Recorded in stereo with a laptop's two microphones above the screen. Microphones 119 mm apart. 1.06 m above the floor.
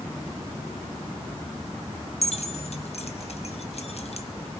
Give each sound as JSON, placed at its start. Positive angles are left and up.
{"t": 2.2, "sound": "keys jangling", "side_deg": 65, "distance_m": 0.6}